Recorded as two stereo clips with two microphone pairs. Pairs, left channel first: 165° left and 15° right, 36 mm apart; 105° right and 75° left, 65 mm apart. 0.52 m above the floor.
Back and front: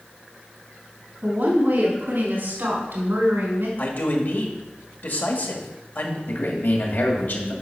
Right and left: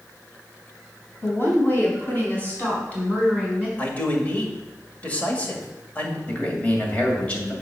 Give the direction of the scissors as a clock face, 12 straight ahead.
No scissors in this recording.